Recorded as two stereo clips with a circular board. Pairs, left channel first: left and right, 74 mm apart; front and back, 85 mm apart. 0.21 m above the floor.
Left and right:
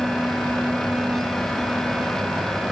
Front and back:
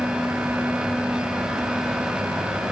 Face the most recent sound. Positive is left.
No sound to turn to.